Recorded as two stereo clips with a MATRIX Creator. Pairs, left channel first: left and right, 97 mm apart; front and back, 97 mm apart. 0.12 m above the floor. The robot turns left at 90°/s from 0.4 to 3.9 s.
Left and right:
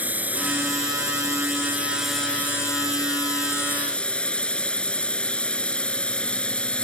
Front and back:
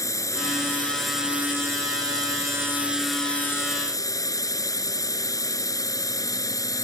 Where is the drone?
30° right; by 6.8 s 15° left.